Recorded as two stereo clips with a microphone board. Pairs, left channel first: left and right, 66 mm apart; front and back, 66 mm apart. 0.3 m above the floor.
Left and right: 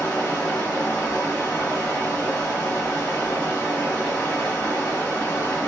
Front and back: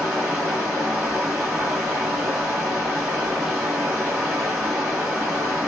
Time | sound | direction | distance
0.0 | running water | 110° left | 1.6 m